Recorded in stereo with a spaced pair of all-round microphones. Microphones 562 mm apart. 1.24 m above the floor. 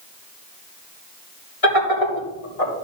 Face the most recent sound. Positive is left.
turn(degrees=85)